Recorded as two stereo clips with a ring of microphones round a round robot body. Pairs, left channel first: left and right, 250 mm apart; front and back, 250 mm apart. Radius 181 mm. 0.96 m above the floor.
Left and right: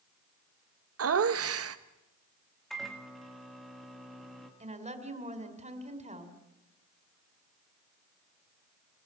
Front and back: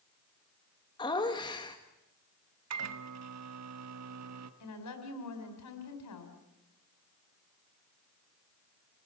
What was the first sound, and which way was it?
Laughter, 75° right.